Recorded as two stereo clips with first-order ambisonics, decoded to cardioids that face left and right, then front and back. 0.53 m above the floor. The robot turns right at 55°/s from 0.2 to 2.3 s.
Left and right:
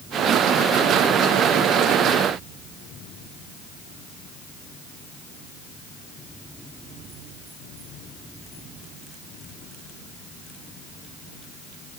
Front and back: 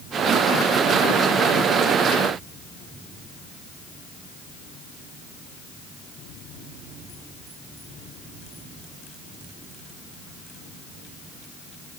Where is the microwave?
No microwave in this recording.